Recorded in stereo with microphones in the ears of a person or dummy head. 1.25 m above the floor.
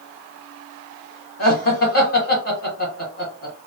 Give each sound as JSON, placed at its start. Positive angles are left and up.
{"t": 1.4, "sound": "laughter", "side_deg": 45, "distance_m": 1.4}